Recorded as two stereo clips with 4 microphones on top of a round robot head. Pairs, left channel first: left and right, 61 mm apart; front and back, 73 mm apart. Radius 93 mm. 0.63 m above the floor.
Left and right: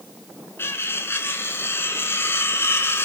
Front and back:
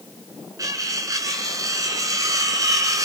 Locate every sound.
0.6 s cutlery clinking: 140° left, 5.5 m